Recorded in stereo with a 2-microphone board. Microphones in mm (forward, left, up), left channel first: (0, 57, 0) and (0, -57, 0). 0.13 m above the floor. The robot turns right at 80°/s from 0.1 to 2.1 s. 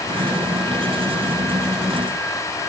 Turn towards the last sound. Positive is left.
No sound to turn to.